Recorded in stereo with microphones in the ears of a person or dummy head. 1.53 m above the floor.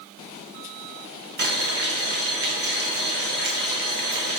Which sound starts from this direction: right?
Boiling, at 1.4 s.